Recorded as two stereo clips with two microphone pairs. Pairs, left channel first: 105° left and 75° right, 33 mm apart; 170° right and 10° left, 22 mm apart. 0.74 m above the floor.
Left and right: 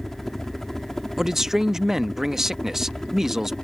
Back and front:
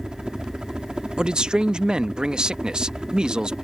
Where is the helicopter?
25° left; by 3.6 s 40° left.